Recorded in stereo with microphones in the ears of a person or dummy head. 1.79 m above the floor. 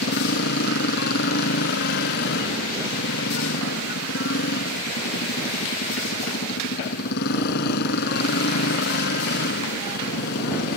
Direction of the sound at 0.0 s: 55° left (ahead or behind).